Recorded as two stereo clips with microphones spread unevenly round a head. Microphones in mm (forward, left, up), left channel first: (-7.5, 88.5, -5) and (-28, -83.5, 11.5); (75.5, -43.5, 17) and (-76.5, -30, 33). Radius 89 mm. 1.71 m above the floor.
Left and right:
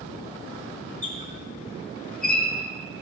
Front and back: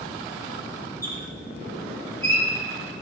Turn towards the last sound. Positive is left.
turn(degrees=75)